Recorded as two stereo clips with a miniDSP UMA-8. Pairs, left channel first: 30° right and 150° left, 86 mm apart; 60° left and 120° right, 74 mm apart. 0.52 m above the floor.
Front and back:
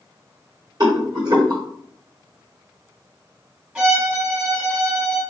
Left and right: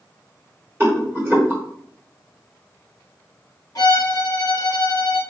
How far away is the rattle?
About 1.0 m.